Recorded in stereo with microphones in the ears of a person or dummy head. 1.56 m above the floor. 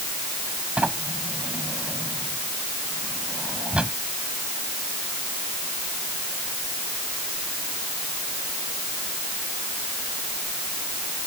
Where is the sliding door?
5° right (ahead or behind).